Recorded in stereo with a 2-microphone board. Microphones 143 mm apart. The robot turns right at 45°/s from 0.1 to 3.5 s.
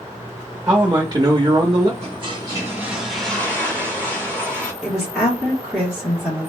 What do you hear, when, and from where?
0.7 s a man speaking: 125° right, 0.7 m; by 1.9 s 65° right, 0.7 m
2.0 s a toilet flushing: 50° right, 1.5 m; by 4.7 s 15° left, 1.5 m
4.8 s a woman speaking: centre (ahead or behind), 1.2 m